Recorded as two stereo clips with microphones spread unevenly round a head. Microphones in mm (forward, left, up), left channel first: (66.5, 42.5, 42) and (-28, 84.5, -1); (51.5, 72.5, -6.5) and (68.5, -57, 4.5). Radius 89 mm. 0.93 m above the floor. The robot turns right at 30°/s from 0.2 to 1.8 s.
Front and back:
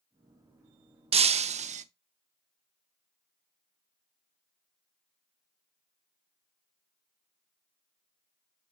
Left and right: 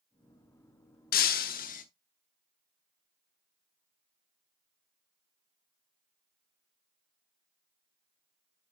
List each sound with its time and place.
1.1 s breaking glass: 120° left, 0.7 m; by 1.9 s 140° left, 0.7 m